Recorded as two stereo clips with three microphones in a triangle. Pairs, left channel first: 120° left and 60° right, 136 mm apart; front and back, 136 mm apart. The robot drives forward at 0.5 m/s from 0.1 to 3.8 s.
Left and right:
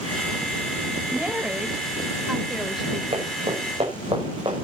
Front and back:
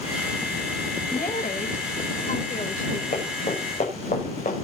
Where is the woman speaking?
20° left, 3 m; by 3.0 s 30° left, 2 m.